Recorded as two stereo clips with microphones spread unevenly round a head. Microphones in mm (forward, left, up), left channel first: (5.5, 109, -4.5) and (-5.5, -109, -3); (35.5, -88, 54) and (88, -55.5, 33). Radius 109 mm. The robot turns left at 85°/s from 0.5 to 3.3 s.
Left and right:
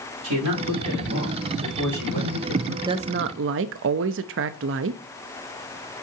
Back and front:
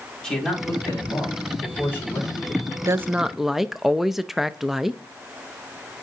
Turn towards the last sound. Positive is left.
turn(degrees=-55)